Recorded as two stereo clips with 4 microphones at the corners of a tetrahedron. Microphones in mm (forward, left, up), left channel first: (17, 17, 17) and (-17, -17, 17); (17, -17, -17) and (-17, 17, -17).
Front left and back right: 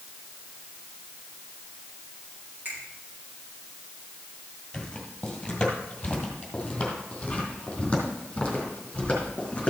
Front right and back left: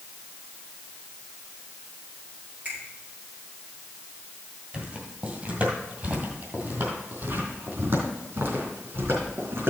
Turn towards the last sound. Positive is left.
turn(degrees=110)